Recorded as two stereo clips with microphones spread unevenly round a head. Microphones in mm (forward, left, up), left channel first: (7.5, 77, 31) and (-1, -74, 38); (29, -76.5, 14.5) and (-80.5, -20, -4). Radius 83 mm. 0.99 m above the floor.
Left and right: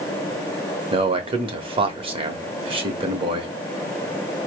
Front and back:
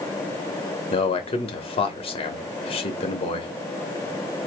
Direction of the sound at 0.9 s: 55° right.